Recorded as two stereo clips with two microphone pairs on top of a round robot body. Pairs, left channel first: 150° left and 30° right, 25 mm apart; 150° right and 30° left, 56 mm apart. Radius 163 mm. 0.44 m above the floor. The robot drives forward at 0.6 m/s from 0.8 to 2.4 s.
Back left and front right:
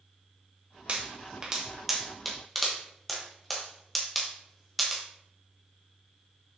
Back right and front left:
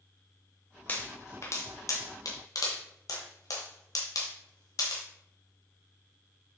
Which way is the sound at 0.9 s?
85° right.